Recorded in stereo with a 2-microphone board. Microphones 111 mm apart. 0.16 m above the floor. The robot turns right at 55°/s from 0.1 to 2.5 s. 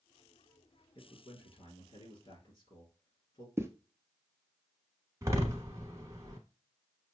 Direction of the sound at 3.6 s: 25° right (ahead or behind).